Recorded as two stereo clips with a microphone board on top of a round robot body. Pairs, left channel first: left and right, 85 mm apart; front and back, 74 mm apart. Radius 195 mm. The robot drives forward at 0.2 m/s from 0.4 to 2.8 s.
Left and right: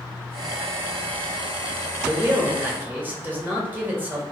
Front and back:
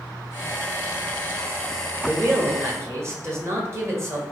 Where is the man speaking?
140° right, 1.2 m; by 4.2 s 150° right, 1.2 m.